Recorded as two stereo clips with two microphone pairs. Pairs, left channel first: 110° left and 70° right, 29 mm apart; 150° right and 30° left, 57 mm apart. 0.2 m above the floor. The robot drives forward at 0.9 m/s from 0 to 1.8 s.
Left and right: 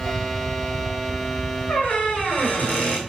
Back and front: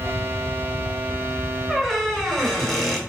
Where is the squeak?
125° left, 2 m; by 3.0 s 130° left, 2.5 m.